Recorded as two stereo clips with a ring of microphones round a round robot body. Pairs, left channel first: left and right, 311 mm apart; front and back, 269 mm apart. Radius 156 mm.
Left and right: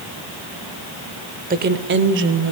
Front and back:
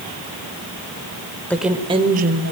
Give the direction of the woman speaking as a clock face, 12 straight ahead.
3 o'clock.